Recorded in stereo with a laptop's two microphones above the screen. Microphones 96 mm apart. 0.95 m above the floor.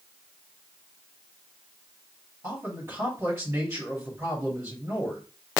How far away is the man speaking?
About 2.5 m.